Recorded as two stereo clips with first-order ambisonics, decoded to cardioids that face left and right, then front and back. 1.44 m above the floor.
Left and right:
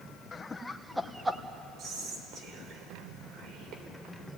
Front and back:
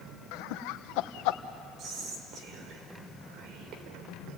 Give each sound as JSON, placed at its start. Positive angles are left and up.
{"t": 0.3, "sound": "laughter", "azimuth_deg": 20, "distance_m": 1.0}
{"t": 1.8, "sound": "whispering", "azimuth_deg": -135, "distance_m": 4.5}